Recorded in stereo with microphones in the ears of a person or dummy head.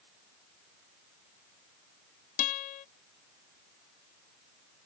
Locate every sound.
2.4 s a guitar: 45° left (ahead or behind)